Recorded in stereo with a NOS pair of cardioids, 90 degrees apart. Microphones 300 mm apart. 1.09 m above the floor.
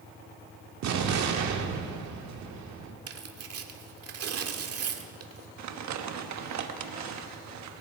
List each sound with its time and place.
0.8 s an explosion: 65° right, 1.9 m
3.1 s tearing paper: 55° right, 1.7 m
5.6 s crumpling: 65° right, 1.3 m